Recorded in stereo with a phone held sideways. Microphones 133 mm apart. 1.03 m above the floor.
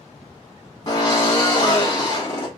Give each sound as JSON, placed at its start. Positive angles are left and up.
{"t": 0.9, "sound": "a drill", "side_deg": 30, "distance_m": 1.5}